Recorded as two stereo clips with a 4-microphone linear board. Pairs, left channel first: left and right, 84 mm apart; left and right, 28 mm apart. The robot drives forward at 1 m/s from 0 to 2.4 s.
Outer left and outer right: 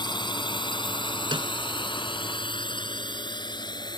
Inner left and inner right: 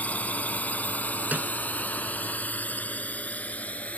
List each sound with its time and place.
0.0 s a drone: 65° left (ahead or behind); by 4.0 s 60° left (ahead or behind)
1.3 s a snare drum: 85° right; by 1.5 s 80° right